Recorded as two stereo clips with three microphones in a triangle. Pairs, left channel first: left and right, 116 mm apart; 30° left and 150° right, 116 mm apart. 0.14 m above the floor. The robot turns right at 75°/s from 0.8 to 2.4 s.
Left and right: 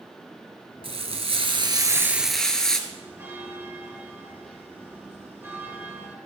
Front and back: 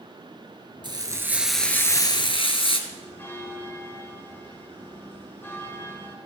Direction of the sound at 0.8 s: 110° right.